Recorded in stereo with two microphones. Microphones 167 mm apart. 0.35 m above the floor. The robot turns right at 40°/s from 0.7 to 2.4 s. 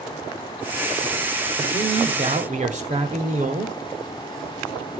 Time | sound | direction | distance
1.6 | a man speaking | 135° right | 1.6 m